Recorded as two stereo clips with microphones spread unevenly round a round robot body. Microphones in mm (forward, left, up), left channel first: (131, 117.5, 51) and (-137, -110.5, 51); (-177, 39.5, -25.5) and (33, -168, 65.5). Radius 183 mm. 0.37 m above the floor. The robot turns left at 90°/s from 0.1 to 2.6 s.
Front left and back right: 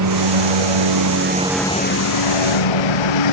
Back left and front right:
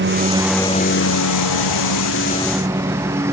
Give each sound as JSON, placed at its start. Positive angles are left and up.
{"t": 0.0, "sound": "a lawn mower", "azimuth_deg": -95}